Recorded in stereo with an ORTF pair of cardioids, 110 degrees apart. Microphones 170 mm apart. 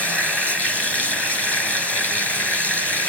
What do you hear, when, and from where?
0.0 s running water: 10° left, 5 m